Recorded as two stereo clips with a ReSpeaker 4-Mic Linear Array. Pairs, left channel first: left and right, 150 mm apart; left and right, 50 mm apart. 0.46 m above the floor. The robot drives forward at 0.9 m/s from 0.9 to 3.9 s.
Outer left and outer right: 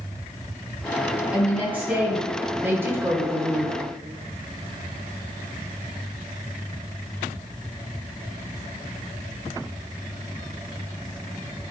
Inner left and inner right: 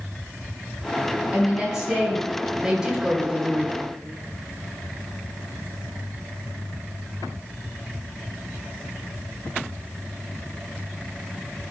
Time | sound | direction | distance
1.3 | a woman speaking | 10° right (ahead or behind) | 3 m